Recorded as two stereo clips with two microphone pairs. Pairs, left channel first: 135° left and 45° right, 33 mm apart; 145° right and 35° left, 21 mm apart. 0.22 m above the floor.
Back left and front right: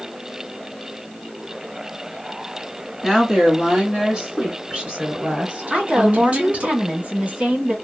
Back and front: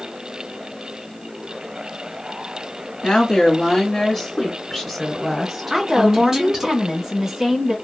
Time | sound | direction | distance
3.0 | a woman speaking | 125° right | 1.3 m
5.7 | a woman speaking | 25° right | 1.4 m